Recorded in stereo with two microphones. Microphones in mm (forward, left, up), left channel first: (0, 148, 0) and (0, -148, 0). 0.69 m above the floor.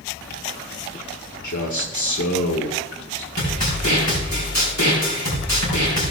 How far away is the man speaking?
About 1.7 m.